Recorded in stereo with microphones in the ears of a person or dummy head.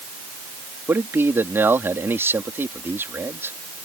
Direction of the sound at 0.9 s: 10° right (ahead or behind).